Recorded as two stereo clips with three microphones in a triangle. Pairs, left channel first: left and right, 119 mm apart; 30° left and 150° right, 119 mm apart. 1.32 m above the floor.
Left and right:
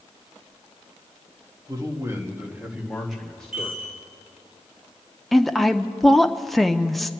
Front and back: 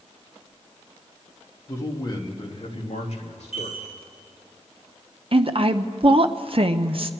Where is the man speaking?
35° right, 1.8 m; by 3.9 s 15° left, 2.5 m.